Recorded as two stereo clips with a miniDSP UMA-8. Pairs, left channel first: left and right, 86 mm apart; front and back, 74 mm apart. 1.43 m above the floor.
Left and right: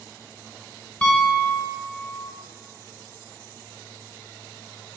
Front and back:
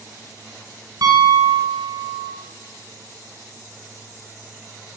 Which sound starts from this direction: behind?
A piano, at 1.0 s.